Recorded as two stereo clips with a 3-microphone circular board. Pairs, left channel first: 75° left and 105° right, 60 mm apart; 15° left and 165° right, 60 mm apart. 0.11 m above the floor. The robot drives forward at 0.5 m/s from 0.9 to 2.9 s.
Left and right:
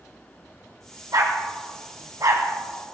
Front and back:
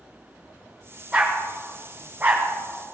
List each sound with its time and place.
1.1 s a dog barking: 90° right, 2.5 m; by 2.5 s 105° right, 2.5 m